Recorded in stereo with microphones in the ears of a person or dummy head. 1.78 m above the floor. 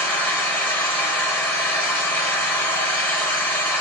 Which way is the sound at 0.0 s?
15° left (ahead or behind).